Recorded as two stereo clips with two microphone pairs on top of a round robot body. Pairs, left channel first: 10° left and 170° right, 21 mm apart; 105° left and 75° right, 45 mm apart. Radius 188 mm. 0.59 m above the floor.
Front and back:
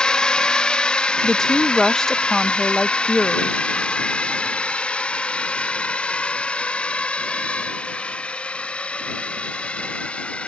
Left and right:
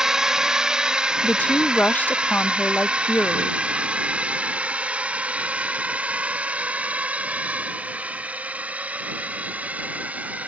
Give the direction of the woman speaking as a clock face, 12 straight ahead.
10 o'clock.